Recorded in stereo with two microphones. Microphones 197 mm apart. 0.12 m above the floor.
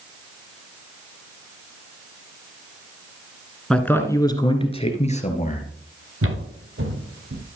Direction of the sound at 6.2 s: 85° right.